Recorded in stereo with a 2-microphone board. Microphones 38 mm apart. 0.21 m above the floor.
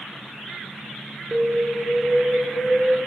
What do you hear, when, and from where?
1.3 s an alarm: 60° right (ahead or behind), 3.5 m